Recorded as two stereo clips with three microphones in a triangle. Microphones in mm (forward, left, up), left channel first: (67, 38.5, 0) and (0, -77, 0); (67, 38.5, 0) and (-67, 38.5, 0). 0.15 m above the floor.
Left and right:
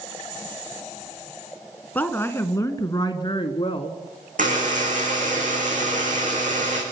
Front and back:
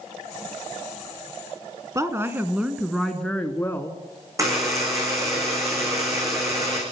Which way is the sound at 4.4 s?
115° right.